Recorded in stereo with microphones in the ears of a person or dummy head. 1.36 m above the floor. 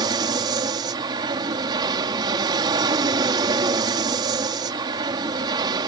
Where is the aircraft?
25° right (ahead or behind).